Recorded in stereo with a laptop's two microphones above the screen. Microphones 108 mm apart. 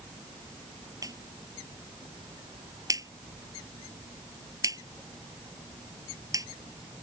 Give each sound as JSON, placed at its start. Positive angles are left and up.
{"t": 1.0, "sound": "a clap", "side_deg": -30}